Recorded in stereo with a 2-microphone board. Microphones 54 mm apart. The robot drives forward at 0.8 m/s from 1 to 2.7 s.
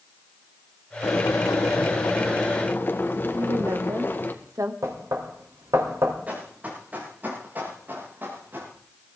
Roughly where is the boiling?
Left.